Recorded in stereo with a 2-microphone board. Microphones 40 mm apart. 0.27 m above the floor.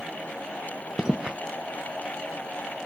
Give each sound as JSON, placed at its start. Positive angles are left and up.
{"t": 1.0, "sound": "footsteps", "side_deg": -15}